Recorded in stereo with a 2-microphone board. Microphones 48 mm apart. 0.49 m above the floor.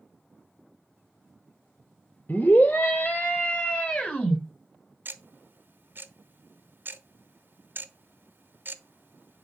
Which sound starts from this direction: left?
A scream, at 2.3 s.